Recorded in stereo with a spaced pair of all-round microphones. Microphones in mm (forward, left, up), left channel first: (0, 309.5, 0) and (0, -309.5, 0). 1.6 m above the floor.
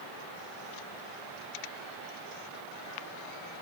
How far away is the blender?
No blender in this recording.